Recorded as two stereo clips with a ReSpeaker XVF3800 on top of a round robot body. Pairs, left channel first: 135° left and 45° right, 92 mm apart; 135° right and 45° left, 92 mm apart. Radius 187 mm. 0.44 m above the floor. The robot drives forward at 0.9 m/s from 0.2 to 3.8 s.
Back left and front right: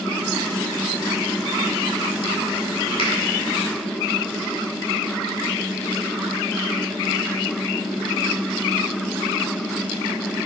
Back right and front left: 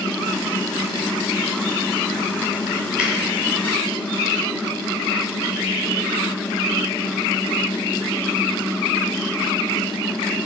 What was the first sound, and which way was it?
A finger snap, 125° left.